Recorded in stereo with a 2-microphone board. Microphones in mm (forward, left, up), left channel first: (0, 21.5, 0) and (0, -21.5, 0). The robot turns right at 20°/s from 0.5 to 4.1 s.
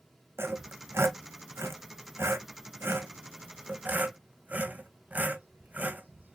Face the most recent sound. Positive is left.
turn(degrees=-40)  # may be behind; listen again after turning